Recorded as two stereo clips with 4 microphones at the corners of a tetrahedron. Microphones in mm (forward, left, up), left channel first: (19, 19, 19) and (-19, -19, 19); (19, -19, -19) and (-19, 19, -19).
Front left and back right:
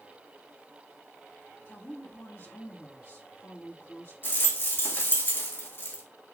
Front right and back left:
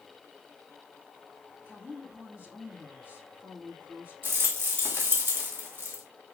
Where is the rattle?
90° left, 3 m.